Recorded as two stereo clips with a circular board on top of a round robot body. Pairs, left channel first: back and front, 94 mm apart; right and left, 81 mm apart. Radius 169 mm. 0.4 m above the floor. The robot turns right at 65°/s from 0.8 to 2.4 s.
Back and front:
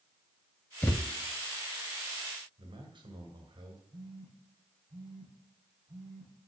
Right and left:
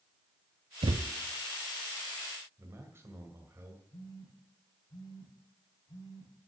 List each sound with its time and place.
0.8 s a thud: 105° left, 0.5 m; by 1.1 s 125° left, 0.5 m
2.6 s a man speaking: 35° left, 2 m
3.9 s a phone buzzing: 45° right, 7 m